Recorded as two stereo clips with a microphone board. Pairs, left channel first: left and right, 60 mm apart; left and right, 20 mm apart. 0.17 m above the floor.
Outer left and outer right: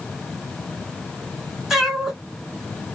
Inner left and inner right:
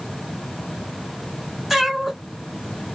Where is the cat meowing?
5° right (ahead or behind), 1.0 m.